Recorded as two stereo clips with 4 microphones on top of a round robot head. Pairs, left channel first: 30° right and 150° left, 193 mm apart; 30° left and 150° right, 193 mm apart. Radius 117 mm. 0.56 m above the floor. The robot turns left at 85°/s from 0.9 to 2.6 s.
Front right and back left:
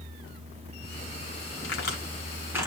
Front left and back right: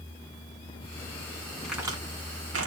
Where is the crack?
55° right, 2.0 m; by 2.7 s 135° right, 2.0 m.